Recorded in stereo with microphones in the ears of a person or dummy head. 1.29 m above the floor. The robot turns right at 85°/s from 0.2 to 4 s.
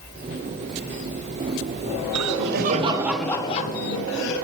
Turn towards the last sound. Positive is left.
turn(degrees=70)